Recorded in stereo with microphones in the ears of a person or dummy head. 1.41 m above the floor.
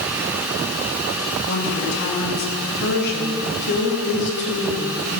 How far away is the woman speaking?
About 3 m.